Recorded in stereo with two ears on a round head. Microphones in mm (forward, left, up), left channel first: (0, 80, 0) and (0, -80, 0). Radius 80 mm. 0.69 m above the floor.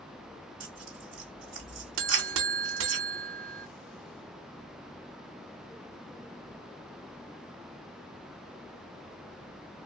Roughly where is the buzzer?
Right.